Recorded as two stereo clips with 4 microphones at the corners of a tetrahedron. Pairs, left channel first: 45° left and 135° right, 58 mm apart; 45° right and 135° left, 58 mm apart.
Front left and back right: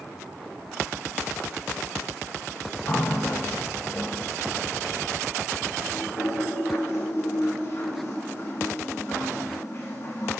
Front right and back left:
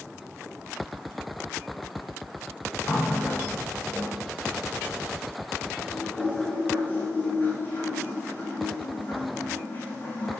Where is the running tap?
10° left, 6.5 m.